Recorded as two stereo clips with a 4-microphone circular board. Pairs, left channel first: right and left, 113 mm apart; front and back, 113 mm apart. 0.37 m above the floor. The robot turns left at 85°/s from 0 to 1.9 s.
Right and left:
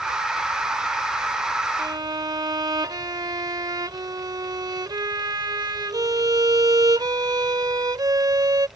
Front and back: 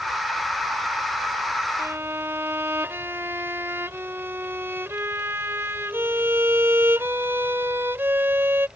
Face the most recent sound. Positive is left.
turn(degrees=120)